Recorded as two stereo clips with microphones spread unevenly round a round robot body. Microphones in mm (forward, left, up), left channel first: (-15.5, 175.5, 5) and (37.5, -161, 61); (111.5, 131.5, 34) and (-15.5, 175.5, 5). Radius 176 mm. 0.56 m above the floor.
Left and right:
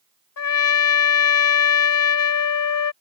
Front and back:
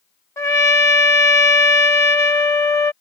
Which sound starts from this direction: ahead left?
A trumpet, at 0.4 s.